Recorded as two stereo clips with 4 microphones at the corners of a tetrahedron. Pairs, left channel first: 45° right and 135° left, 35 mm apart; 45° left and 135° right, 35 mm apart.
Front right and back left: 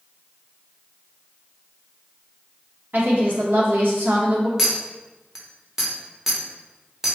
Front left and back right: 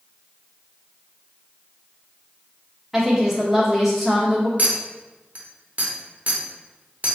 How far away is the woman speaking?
About 1.2 m.